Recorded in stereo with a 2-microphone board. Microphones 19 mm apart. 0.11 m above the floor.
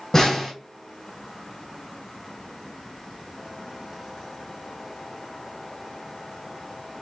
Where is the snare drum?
30° left (ahead or behind), 1.6 m.